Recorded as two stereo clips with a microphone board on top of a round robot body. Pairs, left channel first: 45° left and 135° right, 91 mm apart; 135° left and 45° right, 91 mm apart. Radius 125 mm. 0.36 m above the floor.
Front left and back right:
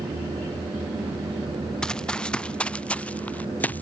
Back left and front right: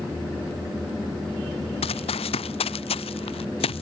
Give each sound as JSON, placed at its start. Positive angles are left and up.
{"t": 1.8, "sound": "running footsteps", "azimuth_deg": 130}